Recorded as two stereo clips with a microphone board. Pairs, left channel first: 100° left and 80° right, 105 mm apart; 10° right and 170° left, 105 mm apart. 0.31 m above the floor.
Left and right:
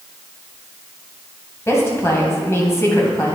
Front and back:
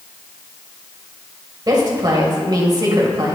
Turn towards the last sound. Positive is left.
turn(degrees=150)